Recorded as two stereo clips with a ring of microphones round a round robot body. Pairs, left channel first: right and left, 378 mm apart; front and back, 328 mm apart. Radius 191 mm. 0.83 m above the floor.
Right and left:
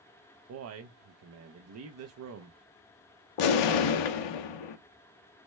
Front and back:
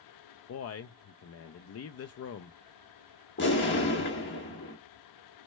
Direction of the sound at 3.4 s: 65° right.